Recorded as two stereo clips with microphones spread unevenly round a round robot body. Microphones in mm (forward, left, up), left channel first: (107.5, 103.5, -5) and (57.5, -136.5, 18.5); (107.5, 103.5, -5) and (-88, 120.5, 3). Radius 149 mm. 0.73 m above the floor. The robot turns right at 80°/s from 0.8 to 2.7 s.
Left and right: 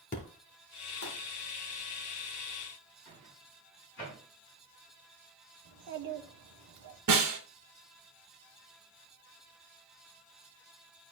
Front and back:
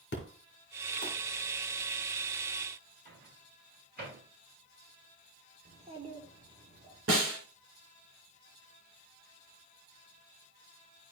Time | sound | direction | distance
0.1 | an explosion | 20° left | 3 m
3.0 | a microwave | 135° left | 6 m
5.7 | a child speaking | 115° right | 1.3 m
7.1 | a snare drum | 135° right | 2 m